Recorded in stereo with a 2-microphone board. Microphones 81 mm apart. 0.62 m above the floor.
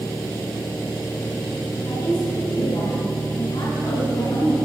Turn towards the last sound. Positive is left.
turn(degrees=75)  # may be behind; listen again after turning